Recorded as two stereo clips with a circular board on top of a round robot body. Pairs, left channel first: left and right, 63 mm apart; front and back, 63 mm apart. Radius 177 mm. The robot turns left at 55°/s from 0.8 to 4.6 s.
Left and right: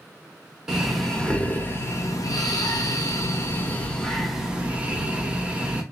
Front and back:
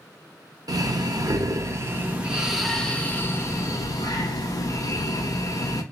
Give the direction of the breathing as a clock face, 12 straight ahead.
6 o'clock.